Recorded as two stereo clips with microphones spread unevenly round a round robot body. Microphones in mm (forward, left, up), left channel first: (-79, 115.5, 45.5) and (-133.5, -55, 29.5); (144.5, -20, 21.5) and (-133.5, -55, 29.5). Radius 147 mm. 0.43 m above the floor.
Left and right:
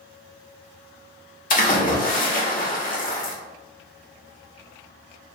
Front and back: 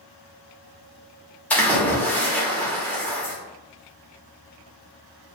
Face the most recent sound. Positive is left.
turn(degrees=90)